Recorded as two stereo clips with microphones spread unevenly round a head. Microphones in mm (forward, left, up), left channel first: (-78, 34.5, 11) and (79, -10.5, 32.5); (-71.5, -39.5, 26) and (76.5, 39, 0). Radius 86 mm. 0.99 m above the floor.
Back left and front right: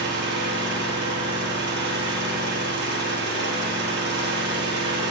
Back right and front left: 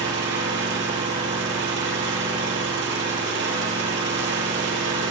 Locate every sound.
0.0 s an engine running: 5° left, 6.5 m